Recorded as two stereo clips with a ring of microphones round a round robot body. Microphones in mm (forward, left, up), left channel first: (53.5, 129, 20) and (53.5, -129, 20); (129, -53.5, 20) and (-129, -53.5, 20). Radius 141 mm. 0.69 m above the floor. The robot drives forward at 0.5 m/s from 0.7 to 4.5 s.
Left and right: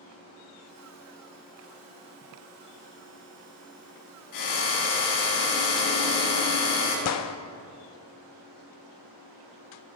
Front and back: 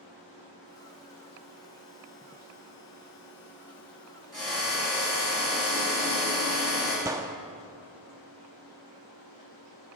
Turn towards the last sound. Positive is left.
turn(degrees=100)